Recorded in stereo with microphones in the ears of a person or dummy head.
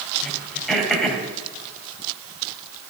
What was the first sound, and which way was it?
Throat clearing, 5° left (ahead or behind).